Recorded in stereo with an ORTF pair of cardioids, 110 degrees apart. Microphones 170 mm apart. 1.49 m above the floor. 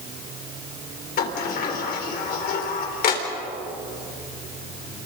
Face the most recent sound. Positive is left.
turn(degrees=65)